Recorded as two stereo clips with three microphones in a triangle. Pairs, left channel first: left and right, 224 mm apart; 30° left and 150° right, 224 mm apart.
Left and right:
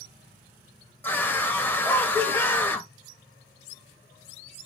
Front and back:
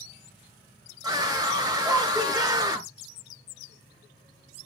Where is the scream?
160° left, 1.2 m.